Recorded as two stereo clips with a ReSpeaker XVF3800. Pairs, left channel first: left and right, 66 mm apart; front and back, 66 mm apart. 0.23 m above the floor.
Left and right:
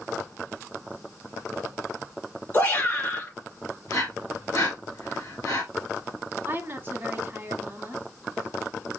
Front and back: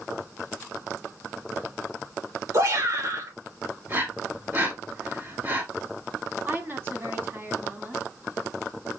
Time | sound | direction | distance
2.5 | a shout | 150° left | 3 m
3.9 | breathing | 125° left | 2 m
6.5 | a woman speaking | 135° right | 1.4 m